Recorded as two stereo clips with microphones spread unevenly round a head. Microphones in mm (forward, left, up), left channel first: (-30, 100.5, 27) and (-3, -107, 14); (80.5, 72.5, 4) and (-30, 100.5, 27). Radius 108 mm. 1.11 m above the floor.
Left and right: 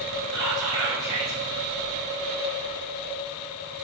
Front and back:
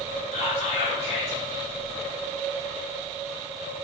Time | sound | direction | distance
0.3 | whispering | 5° left | 1.5 m